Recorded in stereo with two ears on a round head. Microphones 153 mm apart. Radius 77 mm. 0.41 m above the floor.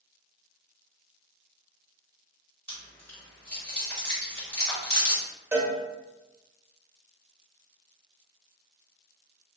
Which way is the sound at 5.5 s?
15° right (ahead or behind).